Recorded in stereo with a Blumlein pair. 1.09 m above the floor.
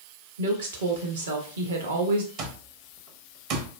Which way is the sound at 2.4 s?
40° right.